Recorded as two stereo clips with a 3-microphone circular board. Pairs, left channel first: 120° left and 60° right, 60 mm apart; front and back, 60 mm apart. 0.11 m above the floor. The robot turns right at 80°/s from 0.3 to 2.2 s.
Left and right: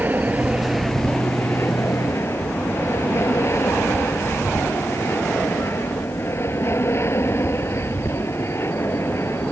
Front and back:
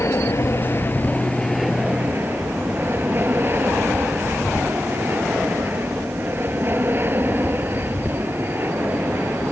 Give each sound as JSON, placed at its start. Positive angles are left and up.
{"t": 0.0, "sound": "an aircraft", "azimuth_deg": -10}